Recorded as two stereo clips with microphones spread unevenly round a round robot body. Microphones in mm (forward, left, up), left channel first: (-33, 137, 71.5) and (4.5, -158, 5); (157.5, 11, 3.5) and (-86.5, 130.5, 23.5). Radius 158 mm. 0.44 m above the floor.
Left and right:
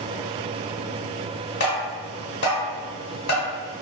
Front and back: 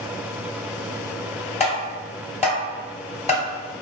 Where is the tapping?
40° left, 1.8 m.